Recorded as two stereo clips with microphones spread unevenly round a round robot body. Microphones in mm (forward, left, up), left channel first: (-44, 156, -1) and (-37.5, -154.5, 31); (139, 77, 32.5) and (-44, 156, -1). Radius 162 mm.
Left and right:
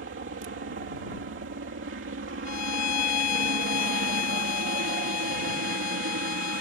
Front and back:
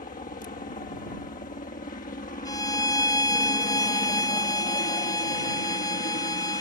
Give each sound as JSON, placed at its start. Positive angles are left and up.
{"t": 0.0, "sound": "a helicopter", "azimuth_deg": -60}
{"t": 2.5, "sound": "a violin", "azimuth_deg": 45}